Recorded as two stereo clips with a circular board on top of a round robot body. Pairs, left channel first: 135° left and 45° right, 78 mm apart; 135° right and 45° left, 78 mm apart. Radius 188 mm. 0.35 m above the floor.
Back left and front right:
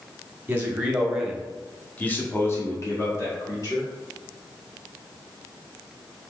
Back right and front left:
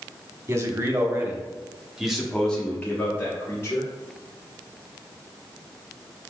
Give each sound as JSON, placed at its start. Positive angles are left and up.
{"t": 0.5, "sound": "a man speaking", "azimuth_deg": 15, "distance_m": 1.7}